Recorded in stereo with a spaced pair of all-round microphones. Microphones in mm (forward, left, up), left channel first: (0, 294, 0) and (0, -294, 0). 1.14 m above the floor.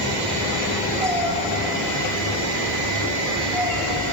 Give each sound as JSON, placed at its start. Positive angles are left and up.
{"t": 1.0, "sound": "a cat meowing", "side_deg": -5, "distance_m": 8.5}